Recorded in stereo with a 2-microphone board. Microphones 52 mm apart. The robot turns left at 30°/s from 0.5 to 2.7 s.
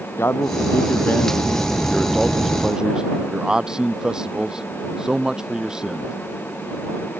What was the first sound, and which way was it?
A man speaking, 55° left.